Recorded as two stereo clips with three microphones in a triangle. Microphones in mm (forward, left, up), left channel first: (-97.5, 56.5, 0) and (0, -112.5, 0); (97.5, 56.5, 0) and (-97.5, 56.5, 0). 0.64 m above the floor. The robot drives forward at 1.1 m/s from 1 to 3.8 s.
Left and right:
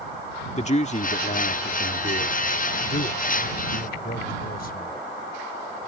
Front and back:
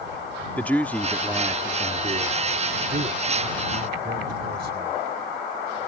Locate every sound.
0.6 s a man speaking: 80° left; by 4.9 s 155° left